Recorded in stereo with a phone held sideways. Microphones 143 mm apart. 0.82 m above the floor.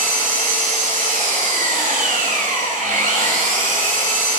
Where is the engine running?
70° right (ahead or behind), 2 m.